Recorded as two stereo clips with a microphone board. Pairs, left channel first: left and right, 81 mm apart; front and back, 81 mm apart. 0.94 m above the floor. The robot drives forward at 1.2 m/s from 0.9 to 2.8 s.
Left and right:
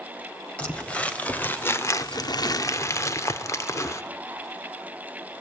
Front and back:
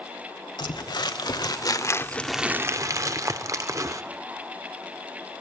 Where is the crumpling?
15° left, 1.8 m; by 4.0 s 140° left, 0.9 m.